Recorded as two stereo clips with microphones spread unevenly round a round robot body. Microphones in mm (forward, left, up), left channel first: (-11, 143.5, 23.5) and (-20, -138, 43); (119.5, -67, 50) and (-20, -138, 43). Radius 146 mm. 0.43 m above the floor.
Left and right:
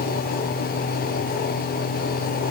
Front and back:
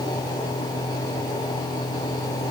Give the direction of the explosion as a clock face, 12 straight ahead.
I don't hear an explosion.